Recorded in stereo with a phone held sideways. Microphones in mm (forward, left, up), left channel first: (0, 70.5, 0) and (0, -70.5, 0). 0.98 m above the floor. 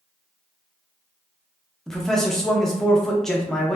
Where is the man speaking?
5° left (ahead or behind), 0.6 m.